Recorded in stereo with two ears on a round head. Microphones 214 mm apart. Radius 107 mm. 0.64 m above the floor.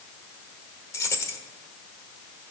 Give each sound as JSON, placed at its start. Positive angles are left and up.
{"t": 0.9, "sound": "keys jangling", "side_deg": 10, "distance_m": 1.2}